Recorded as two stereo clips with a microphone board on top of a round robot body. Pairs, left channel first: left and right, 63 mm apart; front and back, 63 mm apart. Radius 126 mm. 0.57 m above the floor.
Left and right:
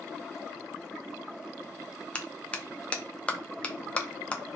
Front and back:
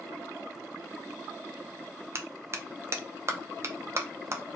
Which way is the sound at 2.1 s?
155° left.